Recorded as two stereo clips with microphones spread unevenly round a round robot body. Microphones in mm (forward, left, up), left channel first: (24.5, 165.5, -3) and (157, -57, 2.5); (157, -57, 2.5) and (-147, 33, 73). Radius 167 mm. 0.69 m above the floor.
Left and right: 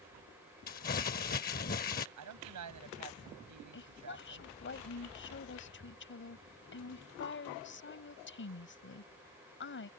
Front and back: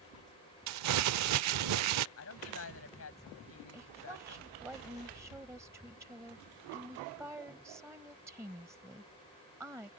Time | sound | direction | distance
0.7 | crumpling | straight behind | ?
2.2 | a woman speaking | 60° right | ?
3.7 | a woman speaking | 80° left | ?